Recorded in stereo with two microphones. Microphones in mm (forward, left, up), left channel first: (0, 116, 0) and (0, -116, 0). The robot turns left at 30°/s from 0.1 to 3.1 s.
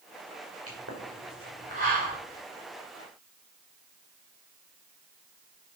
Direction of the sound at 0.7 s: 70° right (ahead or behind).